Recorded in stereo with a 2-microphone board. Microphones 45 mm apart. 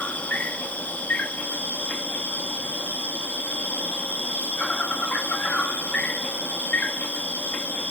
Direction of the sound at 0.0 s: 35° left (ahead or behind).